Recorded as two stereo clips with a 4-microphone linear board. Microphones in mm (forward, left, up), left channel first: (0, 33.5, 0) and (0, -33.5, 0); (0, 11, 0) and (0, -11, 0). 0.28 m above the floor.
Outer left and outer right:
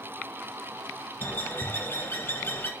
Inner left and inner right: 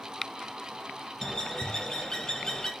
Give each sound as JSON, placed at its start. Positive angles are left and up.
{"t": 1.2, "sound": "a bird", "side_deg": 30, "distance_m": 0.6}